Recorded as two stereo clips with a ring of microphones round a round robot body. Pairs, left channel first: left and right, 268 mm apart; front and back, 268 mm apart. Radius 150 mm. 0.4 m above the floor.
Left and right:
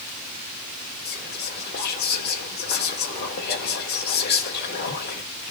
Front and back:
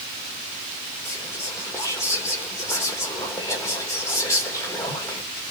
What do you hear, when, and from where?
1.1 s whispering: 75° left, 0.9 m